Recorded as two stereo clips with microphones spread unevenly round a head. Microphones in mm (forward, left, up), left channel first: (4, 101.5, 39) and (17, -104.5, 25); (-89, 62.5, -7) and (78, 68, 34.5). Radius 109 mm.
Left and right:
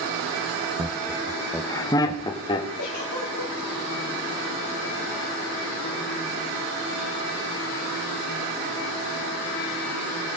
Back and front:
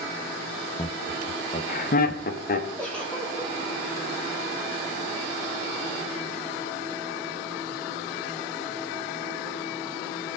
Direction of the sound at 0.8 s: 135° right.